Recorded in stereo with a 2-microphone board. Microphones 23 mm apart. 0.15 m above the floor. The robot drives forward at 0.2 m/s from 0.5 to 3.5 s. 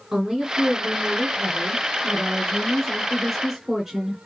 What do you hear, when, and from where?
0.1 s a woman speaking: 15° right (ahead or behind), 1.3 m